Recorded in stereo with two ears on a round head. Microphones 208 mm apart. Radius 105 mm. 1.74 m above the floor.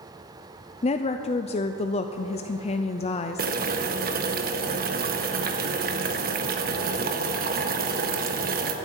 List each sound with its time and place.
0.8 s a woman speaking: 25° left (ahead or behind), 0.5 m
3.4 s boiling: 40° right (ahead or behind), 1.2 m